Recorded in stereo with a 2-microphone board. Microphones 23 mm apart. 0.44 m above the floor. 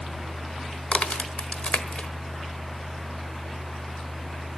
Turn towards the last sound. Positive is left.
turn(degrees=60)  # may be behind; listen again after turning